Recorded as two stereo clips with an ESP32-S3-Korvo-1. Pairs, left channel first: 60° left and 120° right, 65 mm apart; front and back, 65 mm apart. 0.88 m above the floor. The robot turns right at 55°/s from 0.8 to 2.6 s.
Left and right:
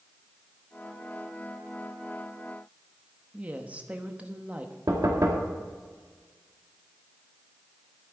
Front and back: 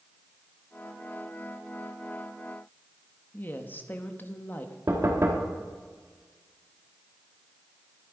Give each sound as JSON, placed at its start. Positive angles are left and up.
{"t": 3.3, "sound": "a woman speaking", "azimuth_deg": -55, "distance_m": 1.0}
{"t": 4.9, "sound": "knocking", "azimuth_deg": -140, "distance_m": 1.9}